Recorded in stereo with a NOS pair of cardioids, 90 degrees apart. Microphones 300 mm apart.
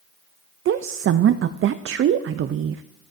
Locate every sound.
0.7 s a woman speaking: 45° right, 0.5 m